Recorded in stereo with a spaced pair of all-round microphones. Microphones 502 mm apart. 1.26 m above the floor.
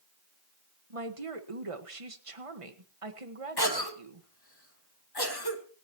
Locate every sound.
0.9 s a woman speaking: 80° right, 1.5 m
3.6 s a cough: 45° left (ahead or behind), 2.5 m